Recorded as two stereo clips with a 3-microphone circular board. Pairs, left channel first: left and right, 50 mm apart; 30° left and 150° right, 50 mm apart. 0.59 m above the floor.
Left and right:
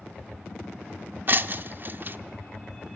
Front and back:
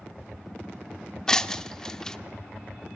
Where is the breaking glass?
50° right, 0.6 m.